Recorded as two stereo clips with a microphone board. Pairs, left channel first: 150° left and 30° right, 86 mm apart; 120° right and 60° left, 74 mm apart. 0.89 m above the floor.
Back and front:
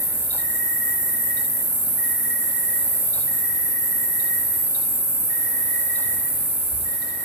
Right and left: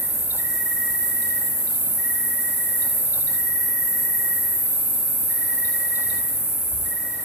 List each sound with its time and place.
0.0 s an insect: 85° right, 2.5 m